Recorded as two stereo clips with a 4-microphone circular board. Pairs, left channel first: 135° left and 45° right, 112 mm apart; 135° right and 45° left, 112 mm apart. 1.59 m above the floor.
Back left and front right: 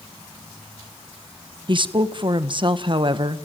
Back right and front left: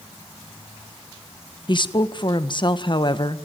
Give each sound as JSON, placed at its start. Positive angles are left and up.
{"t": 1.7, "sound": "a woman speaking", "azimuth_deg": -90, "distance_m": 1.5}